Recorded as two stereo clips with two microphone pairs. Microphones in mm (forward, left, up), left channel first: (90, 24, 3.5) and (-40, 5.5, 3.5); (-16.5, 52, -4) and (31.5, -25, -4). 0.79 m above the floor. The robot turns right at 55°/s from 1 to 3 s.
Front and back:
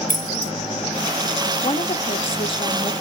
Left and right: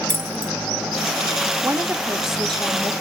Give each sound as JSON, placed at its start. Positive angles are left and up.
{"t": 0.1, "sound": "keys jangling", "azimuth_deg": 5, "distance_m": 0.9}
{"t": 1.6, "sound": "a woman speaking", "azimuth_deg": -10, "distance_m": 1.0}